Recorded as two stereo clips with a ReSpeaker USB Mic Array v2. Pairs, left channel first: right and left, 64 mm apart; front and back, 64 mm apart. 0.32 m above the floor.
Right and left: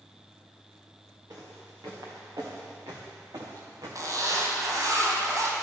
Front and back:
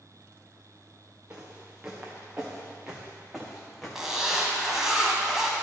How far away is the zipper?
About 1.5 m.